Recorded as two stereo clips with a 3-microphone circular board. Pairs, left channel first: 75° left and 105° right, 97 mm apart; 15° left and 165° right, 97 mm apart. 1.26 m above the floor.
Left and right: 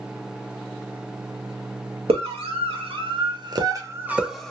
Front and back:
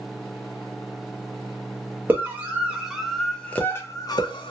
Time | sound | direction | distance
2.1 | a scream | 95° right | 1.3 m